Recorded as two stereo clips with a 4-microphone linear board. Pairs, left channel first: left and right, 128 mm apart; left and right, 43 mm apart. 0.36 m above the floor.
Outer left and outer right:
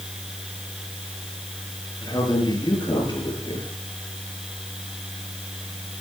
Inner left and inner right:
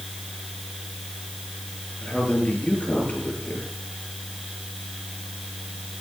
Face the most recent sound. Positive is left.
turn(degrees=35)  # may be behind; listen again after turning